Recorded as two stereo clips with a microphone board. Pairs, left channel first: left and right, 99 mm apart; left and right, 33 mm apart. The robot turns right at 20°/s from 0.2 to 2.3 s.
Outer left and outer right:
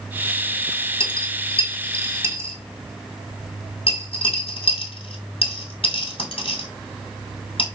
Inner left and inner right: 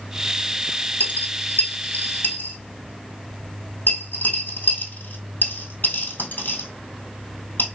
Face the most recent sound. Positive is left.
turn(degrees=65)  # may be behind; listen again after turning